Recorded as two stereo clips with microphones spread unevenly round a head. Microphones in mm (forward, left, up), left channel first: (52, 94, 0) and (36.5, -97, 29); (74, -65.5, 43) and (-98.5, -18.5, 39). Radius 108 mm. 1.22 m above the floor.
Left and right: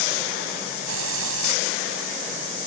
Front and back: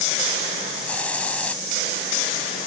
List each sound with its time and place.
0.9 s a hiss: 100° right